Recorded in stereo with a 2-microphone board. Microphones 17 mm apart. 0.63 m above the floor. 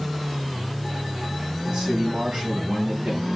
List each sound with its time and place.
1.7 s a man speaking: 70° right (ahead or behind), 5 m